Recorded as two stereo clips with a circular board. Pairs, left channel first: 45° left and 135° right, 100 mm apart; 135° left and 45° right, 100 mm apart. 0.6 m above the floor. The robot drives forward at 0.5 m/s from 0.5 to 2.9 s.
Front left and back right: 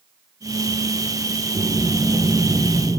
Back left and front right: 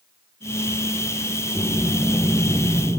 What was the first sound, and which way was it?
Breathing, 155° right.